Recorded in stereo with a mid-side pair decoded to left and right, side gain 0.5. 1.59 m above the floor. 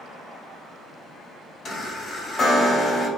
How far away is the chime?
About 1.1 m.